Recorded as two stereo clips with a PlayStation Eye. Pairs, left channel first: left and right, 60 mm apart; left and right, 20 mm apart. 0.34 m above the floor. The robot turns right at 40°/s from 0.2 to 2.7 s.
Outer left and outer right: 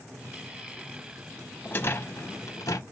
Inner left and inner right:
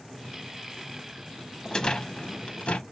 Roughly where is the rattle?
Ahead left.